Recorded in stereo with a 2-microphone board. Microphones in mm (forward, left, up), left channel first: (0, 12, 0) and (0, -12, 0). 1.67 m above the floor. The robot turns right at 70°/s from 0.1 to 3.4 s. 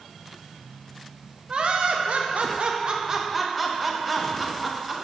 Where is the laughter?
140° right, 0.8 m; by 5.0 s 5° right, 0.8 m.